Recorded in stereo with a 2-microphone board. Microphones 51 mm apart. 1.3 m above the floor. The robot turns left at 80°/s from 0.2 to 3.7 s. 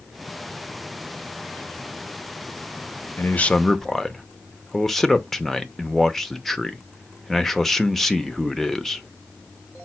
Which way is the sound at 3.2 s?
45° left.